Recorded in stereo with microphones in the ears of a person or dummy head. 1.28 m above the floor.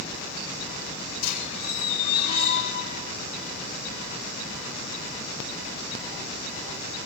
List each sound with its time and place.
1.2 s a squeak: 50° left (ahead or behind), 3 m